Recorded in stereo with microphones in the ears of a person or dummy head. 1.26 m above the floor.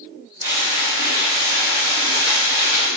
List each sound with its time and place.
0.4 s frying: 55° right (ahead or behind), 2.0 m